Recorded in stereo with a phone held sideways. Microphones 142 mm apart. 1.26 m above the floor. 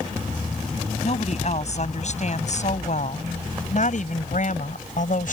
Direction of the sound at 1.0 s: 50° left (ahead or behind).